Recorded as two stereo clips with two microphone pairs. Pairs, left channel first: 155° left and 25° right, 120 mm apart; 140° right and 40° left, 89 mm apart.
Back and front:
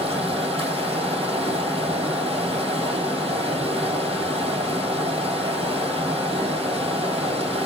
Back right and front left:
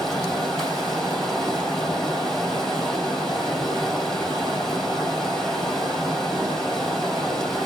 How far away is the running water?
About 3 m.